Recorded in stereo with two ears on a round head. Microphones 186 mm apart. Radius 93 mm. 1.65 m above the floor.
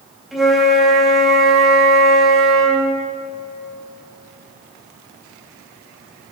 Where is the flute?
Centre (ahead or behind), 3.5 m.